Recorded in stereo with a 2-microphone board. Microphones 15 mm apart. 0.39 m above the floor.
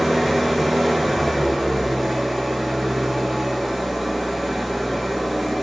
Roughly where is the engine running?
Centre.